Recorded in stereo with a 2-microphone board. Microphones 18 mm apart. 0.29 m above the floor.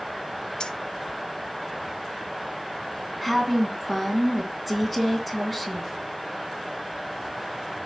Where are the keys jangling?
45° left (ahead or behind), 1.1 m.